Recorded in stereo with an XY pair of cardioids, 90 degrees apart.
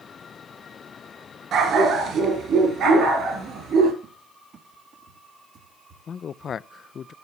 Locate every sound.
1.5 s a dog barking: 70° right, 3.5 m; by 3.9 s 75° right, 4.5 m
4.0 s a cupboard door: 60° right, 1.3 m
6.1 s a man speaking: 55° left, 0.5 m